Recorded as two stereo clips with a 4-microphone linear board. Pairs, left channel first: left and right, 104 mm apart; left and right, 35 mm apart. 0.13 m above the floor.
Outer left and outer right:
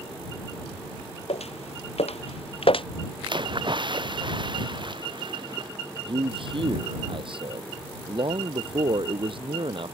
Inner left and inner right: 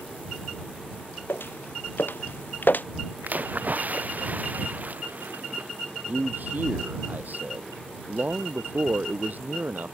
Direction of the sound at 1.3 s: 90° left.